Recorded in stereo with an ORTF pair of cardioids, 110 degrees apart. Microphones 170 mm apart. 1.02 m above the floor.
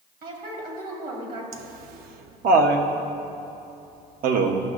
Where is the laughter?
65° right, 0.9 m.